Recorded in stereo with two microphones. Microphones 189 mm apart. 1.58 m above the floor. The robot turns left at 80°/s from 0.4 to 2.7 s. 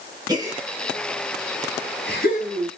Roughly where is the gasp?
Right.